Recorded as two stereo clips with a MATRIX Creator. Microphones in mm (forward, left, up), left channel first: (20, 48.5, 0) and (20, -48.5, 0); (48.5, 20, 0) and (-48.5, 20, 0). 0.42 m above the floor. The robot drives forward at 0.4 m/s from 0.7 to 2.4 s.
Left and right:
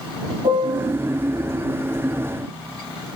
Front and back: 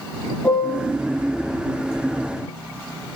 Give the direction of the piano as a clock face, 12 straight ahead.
3 o'clock.